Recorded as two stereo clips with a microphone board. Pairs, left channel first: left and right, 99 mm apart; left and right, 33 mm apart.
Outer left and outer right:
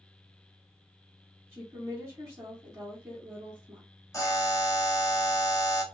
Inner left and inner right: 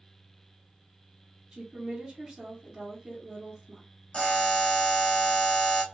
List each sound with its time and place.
1.5 s a woman speaking: 25° right (ahead or behind), 1.3 m
4.1 s a buzzer: 35° left (ahead or behind), 0.9 m